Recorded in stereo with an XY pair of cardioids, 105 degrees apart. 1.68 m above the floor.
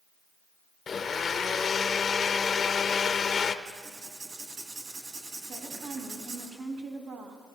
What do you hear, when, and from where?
0.9 s a blender: 40° left, 0.6 m
3.6 s writing: 55° right, 2.5 m
5.5 s a woman speaking: 60° right, 3 m